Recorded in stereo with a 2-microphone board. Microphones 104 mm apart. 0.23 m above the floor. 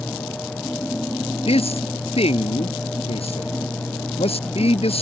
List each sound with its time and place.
1.5 s a man speaking: 70° left (ahead or behind)